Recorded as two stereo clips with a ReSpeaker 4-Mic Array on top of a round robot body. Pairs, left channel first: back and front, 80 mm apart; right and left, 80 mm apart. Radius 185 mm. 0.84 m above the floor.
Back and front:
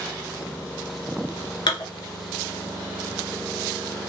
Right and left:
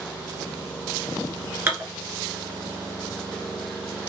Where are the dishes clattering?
150° left, 1.7 m.